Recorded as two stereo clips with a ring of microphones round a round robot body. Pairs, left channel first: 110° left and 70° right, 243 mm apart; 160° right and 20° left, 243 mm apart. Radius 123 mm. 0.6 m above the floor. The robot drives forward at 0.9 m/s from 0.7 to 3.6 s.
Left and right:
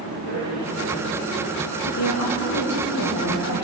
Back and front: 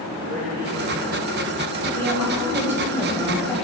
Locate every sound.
0.1 s a man speaking: 65° left, 6.5 m; by 1.7 s 70° left, 6 m
1.8 s a woman speaking: 90° left, 3.5 m; by 3.6 s 115° left, 4 m